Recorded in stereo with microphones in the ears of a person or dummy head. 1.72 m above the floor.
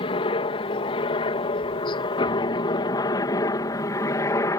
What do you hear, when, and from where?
0.0 s a helicopter: 30° left (ahead or behind); by 4.6 s 20° left (ahead or behind)